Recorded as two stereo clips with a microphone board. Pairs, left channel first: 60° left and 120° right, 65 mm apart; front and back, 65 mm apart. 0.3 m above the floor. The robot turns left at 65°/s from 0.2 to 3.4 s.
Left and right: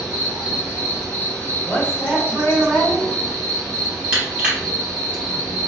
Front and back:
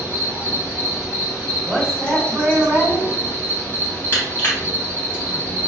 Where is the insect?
155° left, 2.0 m; by 5.7 s 55° right, 2.0 m.